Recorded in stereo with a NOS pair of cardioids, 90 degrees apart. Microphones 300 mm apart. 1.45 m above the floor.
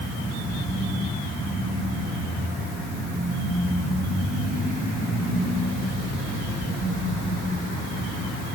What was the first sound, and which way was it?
Only background noise.